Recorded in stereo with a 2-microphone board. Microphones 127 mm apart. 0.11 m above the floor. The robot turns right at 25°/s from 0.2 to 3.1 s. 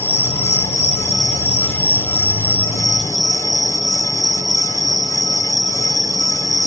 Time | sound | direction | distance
0.0 | an insect | 70° left | 1.8 m